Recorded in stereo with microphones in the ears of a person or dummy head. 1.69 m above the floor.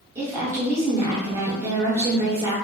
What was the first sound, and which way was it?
A woman speaking, 10° right (ahead or behind).